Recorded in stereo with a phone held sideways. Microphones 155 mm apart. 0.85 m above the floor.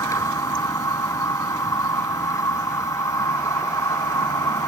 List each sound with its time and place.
0.0 s a machine running: 20° left (ahead or behind)